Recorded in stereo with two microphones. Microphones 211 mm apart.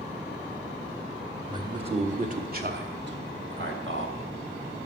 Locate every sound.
1.5 s a man speaking: 20° right (ahead or behind), 1.2 m; by 4.2 s 65° right (ahead or behind), 2 m